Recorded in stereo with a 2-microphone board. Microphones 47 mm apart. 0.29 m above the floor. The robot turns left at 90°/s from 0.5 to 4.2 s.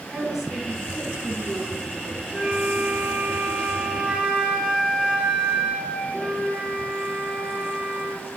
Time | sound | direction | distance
0.1 | a woman speaking | straight behind | 3 m
2.3 | a flute | 20° right | 4.5 m